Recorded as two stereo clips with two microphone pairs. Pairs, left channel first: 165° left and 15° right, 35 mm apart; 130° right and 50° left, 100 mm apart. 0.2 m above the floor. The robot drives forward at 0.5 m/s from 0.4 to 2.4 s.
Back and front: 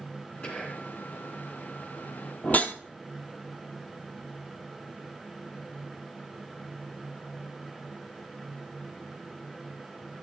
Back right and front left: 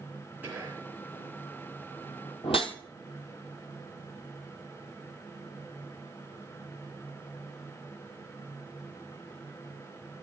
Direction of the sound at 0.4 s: 120° left.